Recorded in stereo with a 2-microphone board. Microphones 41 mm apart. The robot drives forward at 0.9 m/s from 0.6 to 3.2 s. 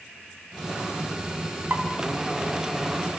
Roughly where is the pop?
Right.